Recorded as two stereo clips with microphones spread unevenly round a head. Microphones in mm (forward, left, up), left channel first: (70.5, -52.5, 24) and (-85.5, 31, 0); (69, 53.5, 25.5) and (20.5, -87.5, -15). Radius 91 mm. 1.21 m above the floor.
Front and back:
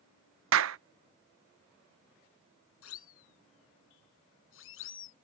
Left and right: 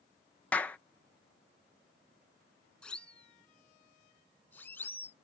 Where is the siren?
10° right; by 5.1 s 5° right.